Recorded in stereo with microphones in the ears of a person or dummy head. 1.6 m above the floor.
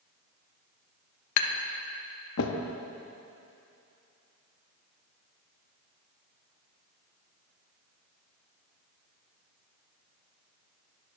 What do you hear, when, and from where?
1.4 s tapping: 75° left (ahead or behind), 0.8 m